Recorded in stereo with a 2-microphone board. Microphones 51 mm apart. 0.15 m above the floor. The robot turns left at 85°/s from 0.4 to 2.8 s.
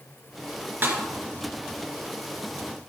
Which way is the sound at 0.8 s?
45° right (ahead or behind).